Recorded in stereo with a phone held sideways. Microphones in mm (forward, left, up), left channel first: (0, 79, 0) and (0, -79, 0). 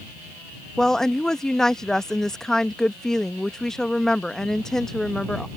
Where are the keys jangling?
I don't hear keys jangling.